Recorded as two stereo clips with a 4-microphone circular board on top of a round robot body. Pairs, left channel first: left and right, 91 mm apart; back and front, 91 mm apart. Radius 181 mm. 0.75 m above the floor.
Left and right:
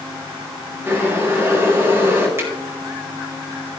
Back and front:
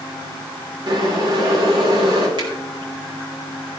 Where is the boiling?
25° right, 3.5 m.